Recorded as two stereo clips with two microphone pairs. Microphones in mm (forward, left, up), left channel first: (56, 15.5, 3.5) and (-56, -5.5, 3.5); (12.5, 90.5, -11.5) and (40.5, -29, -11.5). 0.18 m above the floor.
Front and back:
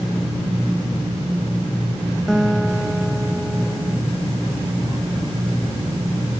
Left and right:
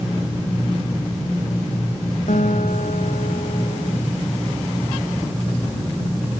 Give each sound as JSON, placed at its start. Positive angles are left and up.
{"t": 2.3, "sound": "a guitar", "azimuth_deg": 100}